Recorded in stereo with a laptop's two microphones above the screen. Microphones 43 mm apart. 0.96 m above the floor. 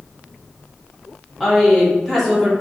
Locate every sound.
1.4 s a woman speaking: centre (ahead or behind), 2 m